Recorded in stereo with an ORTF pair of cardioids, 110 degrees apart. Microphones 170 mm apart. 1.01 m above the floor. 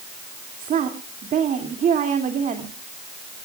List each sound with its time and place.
0.6 s a woman speaking: 50° right, 2.5 m